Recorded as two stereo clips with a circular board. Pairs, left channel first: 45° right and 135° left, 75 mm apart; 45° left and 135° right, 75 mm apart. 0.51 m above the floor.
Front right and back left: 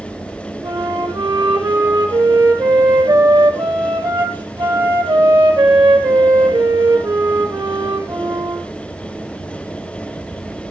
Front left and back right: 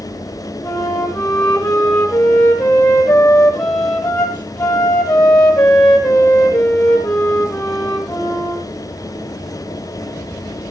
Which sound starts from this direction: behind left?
A flute, at 0.6 s.